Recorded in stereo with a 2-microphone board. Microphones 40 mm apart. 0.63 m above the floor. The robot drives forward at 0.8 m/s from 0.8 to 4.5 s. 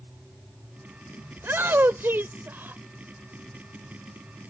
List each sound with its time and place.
1.4 s a shout: 70° right (ahead or behind); by 2.8 s 55° right (ahead or behind)